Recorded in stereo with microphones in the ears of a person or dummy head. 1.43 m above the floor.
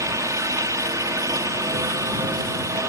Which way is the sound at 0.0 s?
15° right (ahead or behind).